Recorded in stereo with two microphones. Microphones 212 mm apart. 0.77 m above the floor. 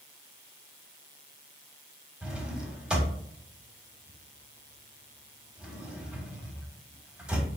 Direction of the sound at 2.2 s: 5° right (ahead or behind).